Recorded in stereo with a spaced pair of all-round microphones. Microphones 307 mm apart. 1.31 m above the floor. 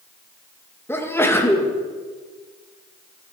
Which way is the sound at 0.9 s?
5° left (ahead or behind).